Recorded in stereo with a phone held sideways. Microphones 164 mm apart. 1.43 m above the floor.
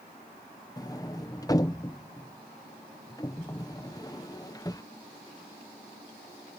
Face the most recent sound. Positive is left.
turn(degrees=20)  # may be behind; listen again after turning